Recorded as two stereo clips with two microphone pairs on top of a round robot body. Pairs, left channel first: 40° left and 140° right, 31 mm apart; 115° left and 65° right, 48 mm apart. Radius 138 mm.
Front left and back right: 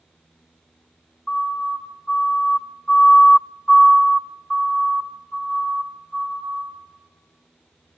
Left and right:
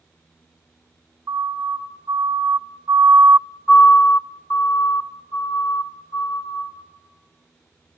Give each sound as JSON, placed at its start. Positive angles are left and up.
{"t": 1.3, "sound": "a siren", "azimuth_deg": -40, "distance_m": 3.0}